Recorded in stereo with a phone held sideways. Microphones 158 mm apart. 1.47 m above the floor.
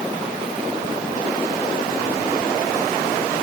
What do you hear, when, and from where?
Only background noise.